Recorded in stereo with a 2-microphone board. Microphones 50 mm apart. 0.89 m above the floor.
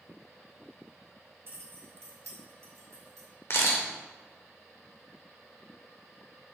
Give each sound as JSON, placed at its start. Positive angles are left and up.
{"t": 1.5, "sound": "keys jangling", "side_deg": -50, "distance_m": 0.8}
{"t": 3.5, "sound": "a camera shutter", "side_deg": 60, "distance_m": 1.1}